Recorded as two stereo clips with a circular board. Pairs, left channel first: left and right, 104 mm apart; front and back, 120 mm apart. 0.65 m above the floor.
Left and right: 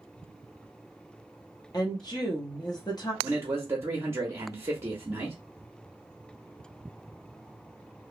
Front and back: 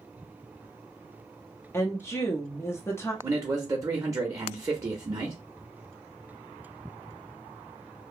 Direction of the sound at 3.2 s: 135° right.